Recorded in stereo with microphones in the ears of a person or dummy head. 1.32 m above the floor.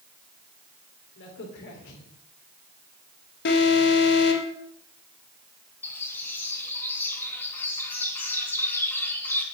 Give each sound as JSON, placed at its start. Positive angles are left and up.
{"t": 1.2, "sound": "a crack", "side_deg": 65, "distance_m": 3.0}
{"t": 3.5, "sound": "an alarm", "side_deg": 55, "distance_m": 2.5}
{"t": 5.8, "sound": "a bird", "side_deg": 10, "distance_m": 2.5}